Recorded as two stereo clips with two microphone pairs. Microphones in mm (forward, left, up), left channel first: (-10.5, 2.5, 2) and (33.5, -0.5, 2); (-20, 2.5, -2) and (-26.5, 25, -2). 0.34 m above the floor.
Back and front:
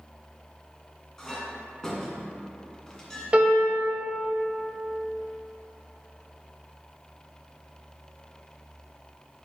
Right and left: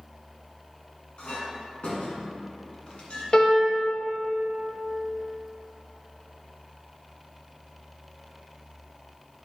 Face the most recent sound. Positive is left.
turn(degrees=-50)